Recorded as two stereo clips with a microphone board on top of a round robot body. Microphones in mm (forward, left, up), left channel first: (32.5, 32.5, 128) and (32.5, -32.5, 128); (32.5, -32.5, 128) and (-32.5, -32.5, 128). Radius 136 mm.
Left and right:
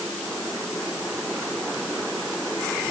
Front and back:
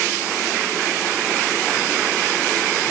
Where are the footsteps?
I don't hear footsteps.